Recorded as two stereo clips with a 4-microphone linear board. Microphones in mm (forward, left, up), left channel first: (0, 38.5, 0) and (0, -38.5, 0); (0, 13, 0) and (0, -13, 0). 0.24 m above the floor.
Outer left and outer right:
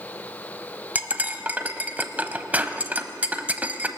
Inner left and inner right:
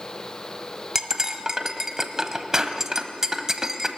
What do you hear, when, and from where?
0.9 s cutlery clinking: 20° right (ahead or behind), 0.8 m